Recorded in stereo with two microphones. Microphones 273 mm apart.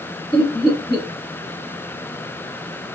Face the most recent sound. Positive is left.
turn(degrees=20)  # may be behind; listen again after turning